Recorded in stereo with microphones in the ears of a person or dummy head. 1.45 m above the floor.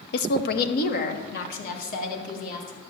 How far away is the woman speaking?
About 0.7 m.